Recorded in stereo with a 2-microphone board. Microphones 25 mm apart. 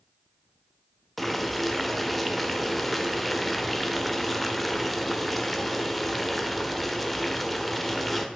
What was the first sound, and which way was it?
Boiling, 10° left (ahead or behind).